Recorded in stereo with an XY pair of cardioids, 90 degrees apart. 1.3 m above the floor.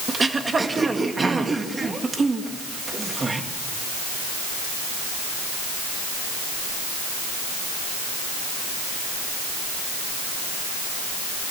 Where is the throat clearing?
30° right, 2.0 m.